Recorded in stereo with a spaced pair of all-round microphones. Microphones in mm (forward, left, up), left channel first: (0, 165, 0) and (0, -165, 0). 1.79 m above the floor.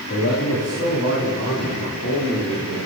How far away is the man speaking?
About 4 m.